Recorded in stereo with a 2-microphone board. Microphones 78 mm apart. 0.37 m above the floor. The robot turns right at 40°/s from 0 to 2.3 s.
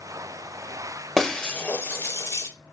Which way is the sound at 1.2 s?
Centre (ahead or behind).